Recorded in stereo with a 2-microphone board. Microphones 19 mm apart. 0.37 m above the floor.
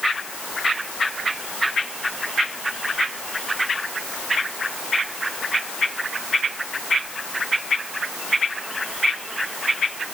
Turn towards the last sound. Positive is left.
No sound to turn to.